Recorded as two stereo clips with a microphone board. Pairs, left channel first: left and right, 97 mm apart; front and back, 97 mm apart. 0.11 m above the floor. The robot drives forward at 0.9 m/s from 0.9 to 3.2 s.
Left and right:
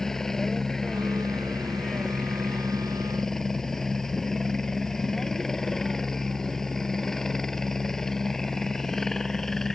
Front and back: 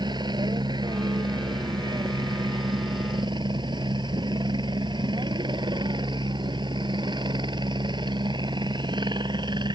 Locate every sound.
0.0 s a helicopter: 175° left